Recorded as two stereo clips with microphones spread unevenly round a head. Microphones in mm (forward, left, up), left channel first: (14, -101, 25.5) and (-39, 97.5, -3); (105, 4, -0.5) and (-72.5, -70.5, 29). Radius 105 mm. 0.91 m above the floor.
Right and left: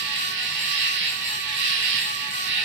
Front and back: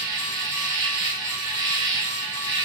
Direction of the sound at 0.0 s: 135° left.